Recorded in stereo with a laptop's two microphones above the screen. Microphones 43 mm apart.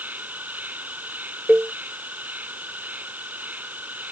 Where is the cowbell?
35° right (ahead or behind).